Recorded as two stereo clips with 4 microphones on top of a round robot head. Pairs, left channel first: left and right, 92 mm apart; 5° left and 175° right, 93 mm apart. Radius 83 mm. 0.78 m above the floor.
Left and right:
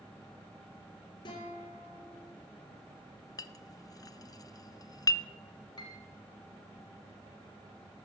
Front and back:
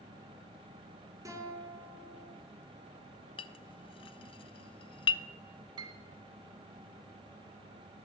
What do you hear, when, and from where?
1.2 s a guitar: 130° left, 3 m
3.4 s a clink: 35° left, 0.6 m
5.8 s a piano: 150° left, 1.1 m